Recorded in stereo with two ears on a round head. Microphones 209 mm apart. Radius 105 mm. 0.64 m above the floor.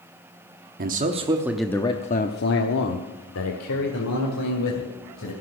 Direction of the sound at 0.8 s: 40° right (ahead or behind).